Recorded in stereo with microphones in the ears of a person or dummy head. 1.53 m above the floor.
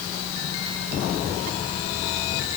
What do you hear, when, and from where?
Only background noise.